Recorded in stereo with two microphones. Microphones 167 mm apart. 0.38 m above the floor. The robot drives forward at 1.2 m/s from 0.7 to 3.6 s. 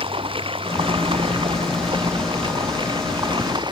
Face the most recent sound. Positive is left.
turn(degrees=-25)  # may be behind; listen again after turning